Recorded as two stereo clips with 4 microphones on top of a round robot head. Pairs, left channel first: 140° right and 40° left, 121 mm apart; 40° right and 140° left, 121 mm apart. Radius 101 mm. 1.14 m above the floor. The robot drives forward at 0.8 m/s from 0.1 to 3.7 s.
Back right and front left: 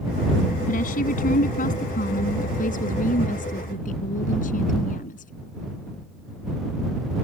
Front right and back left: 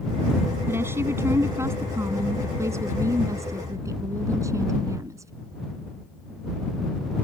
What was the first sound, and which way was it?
A woman speaking, 150° right.